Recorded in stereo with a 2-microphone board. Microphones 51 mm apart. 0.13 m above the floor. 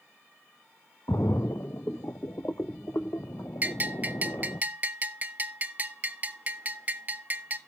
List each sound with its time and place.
1.1 s a splash: 75° left (ahead or behind), 0.6 m
3.6 s a bell: 35° right (ahead or behind), 0.6 m